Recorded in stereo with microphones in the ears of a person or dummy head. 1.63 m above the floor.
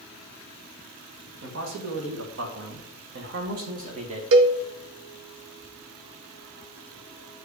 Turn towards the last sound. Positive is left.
turn(degrees=-75)  # may be behind; listen again after turning